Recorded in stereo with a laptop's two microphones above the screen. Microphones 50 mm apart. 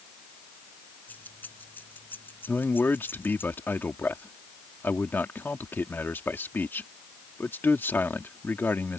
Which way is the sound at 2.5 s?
45° left (ahead or behind).